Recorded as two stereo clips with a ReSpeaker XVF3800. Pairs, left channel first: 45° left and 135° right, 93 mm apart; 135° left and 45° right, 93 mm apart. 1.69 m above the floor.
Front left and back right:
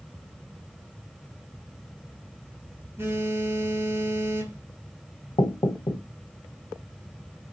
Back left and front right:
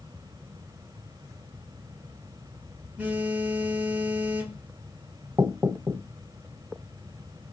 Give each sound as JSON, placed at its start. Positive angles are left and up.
{"t": 3.0, "sound": "a phone buzzing", "azimuth_deg": -100, "distance_m": 1.5}
{"t": 5.4, "sound": "knocking", "azimuth_deg": 15, "distance_m": 0.9}